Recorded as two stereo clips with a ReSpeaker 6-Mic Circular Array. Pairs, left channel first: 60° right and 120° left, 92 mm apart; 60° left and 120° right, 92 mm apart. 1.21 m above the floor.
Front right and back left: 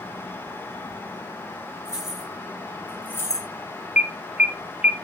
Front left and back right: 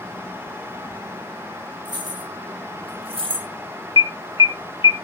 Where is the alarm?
45° left, 0.6 m.